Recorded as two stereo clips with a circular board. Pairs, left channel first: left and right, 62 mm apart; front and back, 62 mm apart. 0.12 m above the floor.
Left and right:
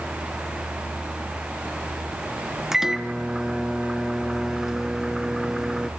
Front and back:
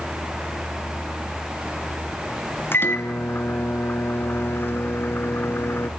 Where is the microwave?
10° right, 1.1 m.